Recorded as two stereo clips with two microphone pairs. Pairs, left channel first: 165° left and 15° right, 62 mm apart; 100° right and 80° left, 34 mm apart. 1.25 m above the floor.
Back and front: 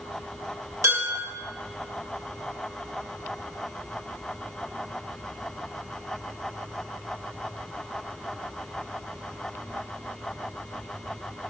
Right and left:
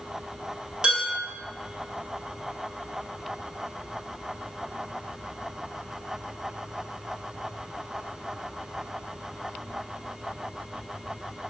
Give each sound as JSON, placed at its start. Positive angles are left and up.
{"t": 0.8, "sound": "dishes clattering", "azimuth_deg": 20, "distance_m": 1.6}